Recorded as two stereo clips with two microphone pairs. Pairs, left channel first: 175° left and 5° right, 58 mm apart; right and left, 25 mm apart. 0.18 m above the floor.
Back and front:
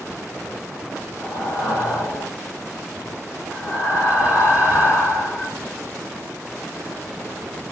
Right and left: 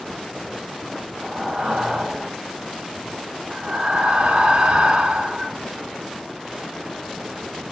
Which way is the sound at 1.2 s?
135° left.